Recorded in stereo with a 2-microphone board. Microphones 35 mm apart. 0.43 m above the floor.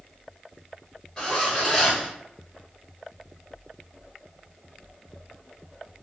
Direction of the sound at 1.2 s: 25° left (ahead or behind).